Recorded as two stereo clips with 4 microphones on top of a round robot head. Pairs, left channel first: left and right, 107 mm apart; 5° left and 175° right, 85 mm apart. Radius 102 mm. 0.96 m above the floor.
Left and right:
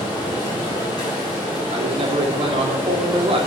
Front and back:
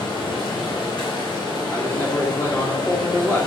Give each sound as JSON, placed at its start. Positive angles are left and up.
{"t": 0.0, "sound": "running water", "azimuth_deg": 35, "distance_m": 4.0}
{"t": 1.7, "sound": "a man speaking", "azimuth_deg": -55, "distance_m": 2.5}